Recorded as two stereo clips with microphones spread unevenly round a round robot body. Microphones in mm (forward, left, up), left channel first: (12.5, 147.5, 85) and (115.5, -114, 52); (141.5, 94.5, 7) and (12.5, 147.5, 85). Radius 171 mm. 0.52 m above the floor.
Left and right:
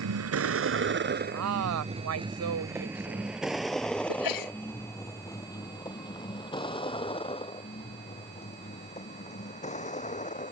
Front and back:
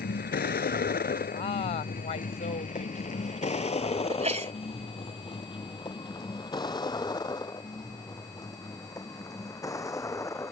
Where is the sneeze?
115° left.